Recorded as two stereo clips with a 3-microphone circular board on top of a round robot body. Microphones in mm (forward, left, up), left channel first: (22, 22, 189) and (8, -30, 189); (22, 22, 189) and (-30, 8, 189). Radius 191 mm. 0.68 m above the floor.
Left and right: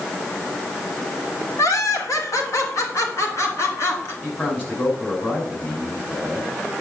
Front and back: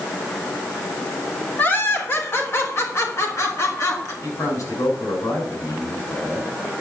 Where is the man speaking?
20° left, 6.5 m.